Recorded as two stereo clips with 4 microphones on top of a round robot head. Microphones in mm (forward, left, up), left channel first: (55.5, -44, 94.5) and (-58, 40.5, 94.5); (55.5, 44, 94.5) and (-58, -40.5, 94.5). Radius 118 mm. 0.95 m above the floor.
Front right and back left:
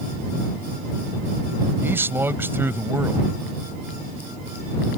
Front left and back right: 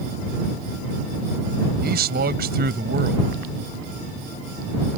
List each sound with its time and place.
1.8 s a man speaking: 140° right